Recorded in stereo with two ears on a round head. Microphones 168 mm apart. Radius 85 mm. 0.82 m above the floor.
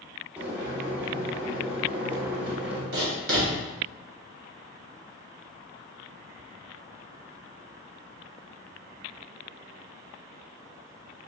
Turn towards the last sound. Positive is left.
turn(degrees=-55)  # may be behind; listen again after turning